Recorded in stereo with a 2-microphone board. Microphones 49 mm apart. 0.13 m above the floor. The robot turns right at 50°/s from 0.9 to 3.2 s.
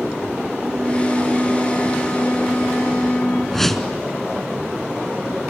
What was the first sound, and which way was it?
A flute, 5° right.